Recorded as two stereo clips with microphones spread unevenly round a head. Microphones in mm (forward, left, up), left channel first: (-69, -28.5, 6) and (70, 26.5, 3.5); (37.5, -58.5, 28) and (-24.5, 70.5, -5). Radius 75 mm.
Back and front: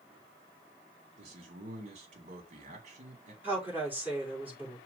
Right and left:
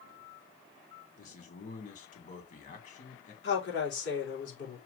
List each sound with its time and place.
1.2 s a man speaking: 25° right, 2.5 m
3.4 s a woman speaking: 55° right, 4 m